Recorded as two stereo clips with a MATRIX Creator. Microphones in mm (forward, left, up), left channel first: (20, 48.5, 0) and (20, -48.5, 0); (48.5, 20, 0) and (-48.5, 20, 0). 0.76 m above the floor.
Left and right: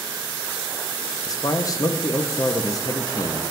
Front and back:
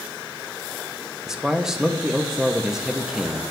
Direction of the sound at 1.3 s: 100° left.